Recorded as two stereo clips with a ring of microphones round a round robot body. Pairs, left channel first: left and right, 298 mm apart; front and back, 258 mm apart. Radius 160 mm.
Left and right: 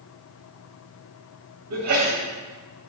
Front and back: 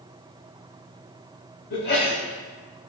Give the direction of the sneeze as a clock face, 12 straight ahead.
2 o'clock.